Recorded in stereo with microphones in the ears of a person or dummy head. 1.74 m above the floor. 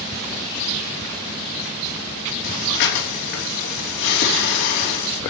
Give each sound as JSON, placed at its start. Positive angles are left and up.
{"t": 2.4, "sound": "breathing", "side_deg": 75, "distance_m": 4.5}